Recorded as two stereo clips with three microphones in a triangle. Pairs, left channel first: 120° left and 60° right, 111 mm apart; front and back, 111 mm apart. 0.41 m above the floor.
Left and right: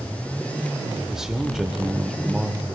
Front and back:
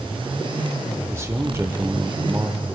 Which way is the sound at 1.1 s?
145° right.